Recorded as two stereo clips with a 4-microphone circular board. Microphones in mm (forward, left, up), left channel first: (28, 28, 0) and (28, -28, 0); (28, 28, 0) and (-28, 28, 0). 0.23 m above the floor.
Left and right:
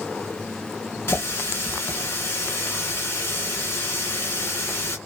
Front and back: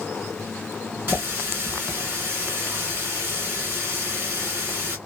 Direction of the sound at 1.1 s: 130° left.